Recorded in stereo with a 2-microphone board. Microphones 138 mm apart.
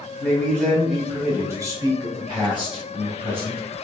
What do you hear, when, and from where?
0.2 s a man speaking: 15° left (ahead or behind), 1.1 m; by 3.6 s 40° right (ahead or behind), 2 m